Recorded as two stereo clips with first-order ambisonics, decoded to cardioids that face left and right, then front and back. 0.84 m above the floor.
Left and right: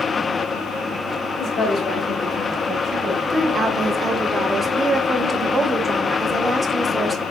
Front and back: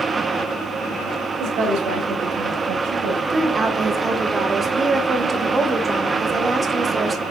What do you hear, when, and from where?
1.4 s a woman speaking: 140° left, 1.8 m; by 3.2 s 150° right, 0.8 m
3.3 s a woman speaking: 140° right, 0.6 m